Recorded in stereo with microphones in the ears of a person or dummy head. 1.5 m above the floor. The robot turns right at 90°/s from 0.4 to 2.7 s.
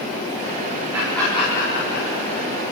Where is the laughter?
15° right (ahead or behind), 5 m; by 2.5 s 60° left (ahead or behind), 5 m.